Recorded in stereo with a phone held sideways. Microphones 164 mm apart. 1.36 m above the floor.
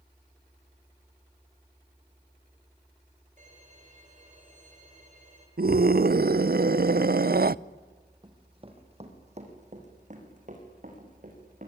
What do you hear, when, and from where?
3.4 s a violin: 50° right (ahead or behind), 6.5 m
5.6 s a scream: 65° right (ahead or behind), 0.5 m
8.2 s running footsteps: 25° right (ahead or behind), 3 m; by 11.7 s 55° right (ahead or behind), 7.5 m